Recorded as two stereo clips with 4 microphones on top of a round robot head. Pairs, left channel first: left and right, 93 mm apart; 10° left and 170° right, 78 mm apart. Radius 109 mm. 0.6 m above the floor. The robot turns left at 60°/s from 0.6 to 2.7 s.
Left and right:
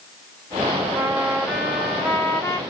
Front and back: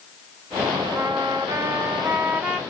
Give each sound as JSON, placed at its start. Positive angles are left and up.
{"t": 0.9, "sound": "a trumpet", "azimuth_deg": -140, "distance_m": 1.5}